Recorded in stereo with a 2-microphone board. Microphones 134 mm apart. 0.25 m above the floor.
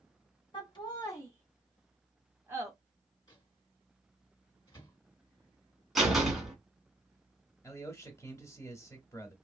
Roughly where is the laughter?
Left.